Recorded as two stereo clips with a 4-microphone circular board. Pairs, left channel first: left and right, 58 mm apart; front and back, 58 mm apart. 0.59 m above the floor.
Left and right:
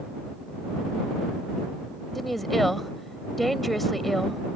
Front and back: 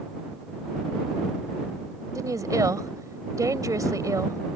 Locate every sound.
2.1 s a woman speaking: straight behind